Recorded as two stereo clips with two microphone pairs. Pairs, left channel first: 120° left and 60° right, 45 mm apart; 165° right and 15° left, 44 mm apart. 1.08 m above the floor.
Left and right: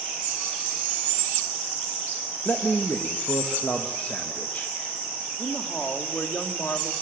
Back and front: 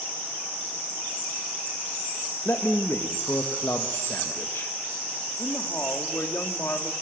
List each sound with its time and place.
2.5 s a man speaking: 175° left, 1.5 m
5.4 s a woman speaking: 170° left, 2.5 m